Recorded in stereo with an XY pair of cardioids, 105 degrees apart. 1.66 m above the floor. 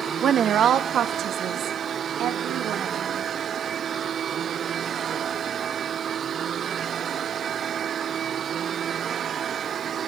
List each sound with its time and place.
0.2 s a woman speaking: 50° right, 1.1 m; by 3.3 s 80° right, 3 m